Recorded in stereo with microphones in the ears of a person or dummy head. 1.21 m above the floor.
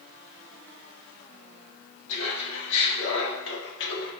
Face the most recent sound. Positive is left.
turn(degrees=65)  # may be behind; listen again after turning